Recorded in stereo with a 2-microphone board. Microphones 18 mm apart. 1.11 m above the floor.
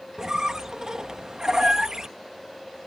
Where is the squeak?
35° right (ahead or behind).